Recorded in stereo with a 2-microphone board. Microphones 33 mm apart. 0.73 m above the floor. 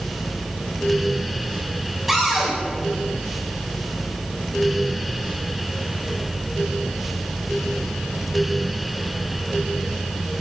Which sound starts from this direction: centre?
A cupboard door, at 2.1 s.